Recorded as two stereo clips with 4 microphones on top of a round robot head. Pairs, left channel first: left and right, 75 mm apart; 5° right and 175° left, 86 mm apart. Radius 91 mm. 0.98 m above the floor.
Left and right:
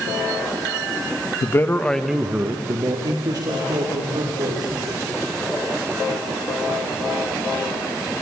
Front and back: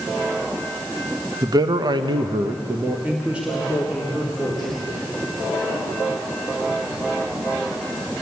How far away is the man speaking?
About 1.5 m.